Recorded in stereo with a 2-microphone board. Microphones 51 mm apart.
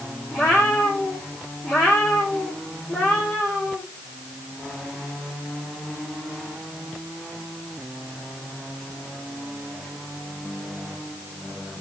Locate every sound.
0.3 s a cat meowing: 20° left (ahead or behind), 3 m